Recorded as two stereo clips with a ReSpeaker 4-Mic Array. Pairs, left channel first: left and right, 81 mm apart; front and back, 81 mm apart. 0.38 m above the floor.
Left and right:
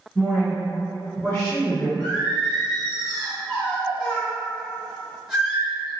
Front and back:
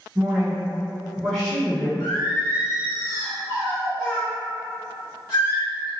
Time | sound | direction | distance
0.1 | a woman speaking | 175° left | 1.5 m
2.0 | singing | 5° right | 2.0 m